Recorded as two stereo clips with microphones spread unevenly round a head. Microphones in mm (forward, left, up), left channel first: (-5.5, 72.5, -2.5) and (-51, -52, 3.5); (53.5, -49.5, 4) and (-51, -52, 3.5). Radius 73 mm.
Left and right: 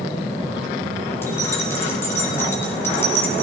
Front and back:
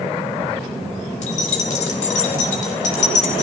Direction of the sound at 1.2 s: 5° right.